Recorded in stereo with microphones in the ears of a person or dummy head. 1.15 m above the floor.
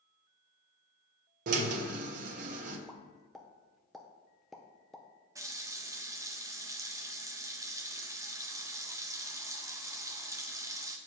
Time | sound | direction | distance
1.5 | a drill | 45° right (ahead or behind) | 1.2 m
2.9 | a pop | centre (ahead or behind) | 0.6 m
5.3 | a running tap | 20° right (ahead or behind) | 0.6 m